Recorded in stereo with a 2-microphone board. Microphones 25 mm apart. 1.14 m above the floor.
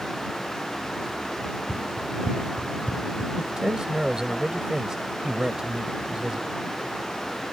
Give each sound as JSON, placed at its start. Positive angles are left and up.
{"t": 1.4, "sound": "running footsteps", "side_deg": -70}
{"t": 3.4, "sound": "a man speaking", "side_deg": -30}